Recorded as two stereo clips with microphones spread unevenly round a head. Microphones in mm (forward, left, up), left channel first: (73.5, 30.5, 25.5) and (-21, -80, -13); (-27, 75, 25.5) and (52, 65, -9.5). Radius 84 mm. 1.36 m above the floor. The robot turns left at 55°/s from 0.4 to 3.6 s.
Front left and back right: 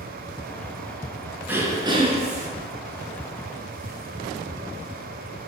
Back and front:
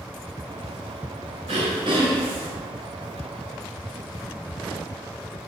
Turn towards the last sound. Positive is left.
turn(degrees=-155)